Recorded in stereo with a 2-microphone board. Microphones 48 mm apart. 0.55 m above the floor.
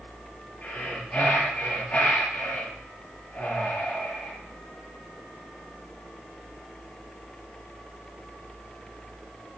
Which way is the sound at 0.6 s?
25° left (ahead or behind).